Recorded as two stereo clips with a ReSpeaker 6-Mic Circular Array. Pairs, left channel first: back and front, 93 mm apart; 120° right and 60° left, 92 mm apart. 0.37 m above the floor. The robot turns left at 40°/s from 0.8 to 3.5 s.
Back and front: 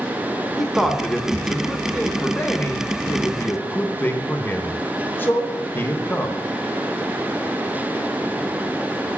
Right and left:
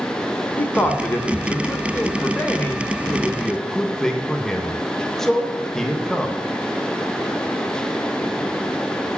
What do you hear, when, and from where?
0.6 s a man speaking: 90° right, 0.8 m; by 6.4 s 160° left, 0.8 m